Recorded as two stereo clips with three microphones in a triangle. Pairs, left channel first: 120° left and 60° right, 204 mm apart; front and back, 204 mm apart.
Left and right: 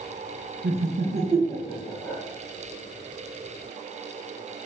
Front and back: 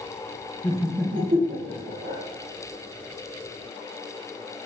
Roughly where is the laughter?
Ahead right.